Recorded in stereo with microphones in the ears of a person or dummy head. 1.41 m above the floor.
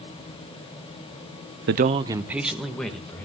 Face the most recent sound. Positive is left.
turn(degrees=5)  # may be behind; listen again after turning